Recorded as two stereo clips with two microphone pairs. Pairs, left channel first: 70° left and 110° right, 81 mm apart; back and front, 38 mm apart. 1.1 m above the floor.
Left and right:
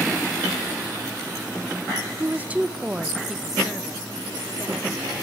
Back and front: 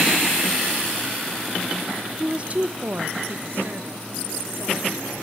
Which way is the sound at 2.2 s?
65° right.